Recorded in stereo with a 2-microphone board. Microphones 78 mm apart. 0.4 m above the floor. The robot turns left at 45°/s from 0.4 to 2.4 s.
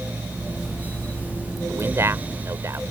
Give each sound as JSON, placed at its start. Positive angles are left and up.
{"t": 1.7, "sound": "a man speaking", "azimuth_deg": -55}